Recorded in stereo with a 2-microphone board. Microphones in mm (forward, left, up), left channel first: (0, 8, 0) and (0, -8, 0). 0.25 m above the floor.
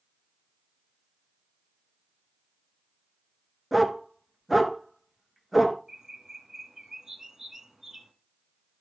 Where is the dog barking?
10° right (ahead or behind), 1.2 m.